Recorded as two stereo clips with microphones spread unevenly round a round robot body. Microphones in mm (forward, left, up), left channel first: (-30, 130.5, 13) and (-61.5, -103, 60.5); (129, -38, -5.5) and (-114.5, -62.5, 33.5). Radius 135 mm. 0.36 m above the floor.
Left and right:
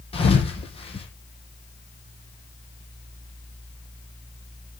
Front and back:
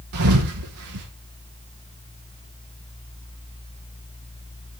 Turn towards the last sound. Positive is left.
turn(degrees=150)